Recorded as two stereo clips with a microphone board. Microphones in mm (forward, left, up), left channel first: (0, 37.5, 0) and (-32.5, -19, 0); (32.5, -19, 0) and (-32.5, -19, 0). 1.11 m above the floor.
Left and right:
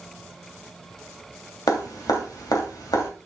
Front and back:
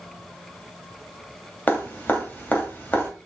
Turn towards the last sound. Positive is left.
turn(degrees=65)